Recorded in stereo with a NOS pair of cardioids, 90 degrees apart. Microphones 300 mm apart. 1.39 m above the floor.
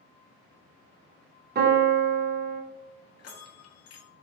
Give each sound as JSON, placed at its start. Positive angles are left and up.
{"t": 1.6, "sound": "a piano", "azimuth_deg": -35, "distance_m": 0.7}
{"t": 3.2, "sound": "a bell", "azimuth_deg": 55, "distance_m": 0.6}